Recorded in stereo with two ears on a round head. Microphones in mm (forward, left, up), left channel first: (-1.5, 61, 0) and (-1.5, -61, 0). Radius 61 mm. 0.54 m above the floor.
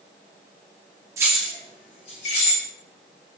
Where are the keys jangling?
20° right (ahead or behind), 0.6 m; by 2.6 s 55° left (ahead or behind), 1.6 m.